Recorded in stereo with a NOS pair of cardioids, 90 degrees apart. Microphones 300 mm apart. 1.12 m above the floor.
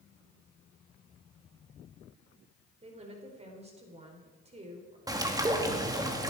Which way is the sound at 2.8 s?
20° right.